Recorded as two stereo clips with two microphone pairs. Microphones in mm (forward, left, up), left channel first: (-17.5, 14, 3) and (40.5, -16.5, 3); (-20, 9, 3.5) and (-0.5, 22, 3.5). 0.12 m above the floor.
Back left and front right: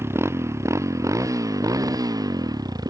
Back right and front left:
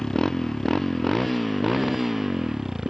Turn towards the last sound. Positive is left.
turn(degrees=-35)